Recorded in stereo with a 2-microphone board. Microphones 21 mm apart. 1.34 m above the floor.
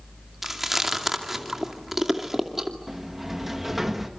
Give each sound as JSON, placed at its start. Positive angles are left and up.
{"t": 0.4, "sound": "chewing", "side_deg": -10, "distance_m": 2.5}
{"t": 2.9, "sound": "a sliding door", "side_deg": -15, "distance_m": 2.0}